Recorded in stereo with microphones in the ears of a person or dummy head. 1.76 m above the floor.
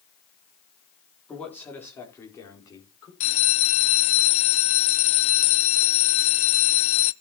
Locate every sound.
1.3 s a man speaking: 10° left (ahead or behind), 3.5 m; by 3.1 s 25° left (ahead or behind), 5 m
3.2 s a bell: 40° left (ahead or behind), 0.6 m